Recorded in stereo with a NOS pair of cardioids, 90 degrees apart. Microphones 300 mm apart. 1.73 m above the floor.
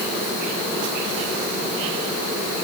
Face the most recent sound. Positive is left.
No sound to turn to.